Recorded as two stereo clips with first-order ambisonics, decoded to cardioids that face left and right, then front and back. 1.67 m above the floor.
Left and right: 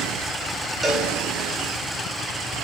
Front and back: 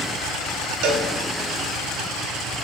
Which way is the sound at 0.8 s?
170° right.